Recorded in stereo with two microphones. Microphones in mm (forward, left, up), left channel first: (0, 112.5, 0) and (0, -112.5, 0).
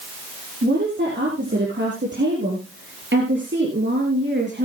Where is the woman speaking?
55° right (ahead or behind), 6 m.